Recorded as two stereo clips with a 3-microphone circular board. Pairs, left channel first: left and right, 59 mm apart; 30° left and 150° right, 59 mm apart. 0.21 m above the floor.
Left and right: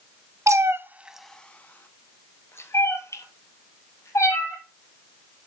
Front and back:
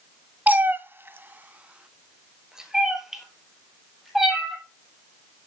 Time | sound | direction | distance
0.5 | a cat meowing | 95° right | 0.7 m